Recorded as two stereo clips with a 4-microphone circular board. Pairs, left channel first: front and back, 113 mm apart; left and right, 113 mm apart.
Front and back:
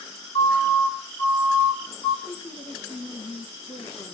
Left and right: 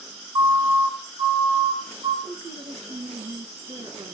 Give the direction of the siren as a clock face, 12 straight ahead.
1 o'clock.